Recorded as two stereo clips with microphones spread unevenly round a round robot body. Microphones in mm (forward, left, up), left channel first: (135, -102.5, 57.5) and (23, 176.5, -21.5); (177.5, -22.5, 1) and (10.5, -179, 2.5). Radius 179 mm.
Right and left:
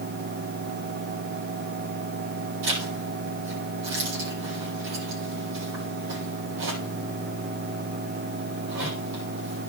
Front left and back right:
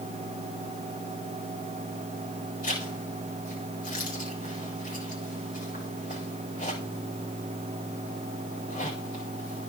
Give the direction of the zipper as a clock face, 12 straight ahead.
8 o'clock.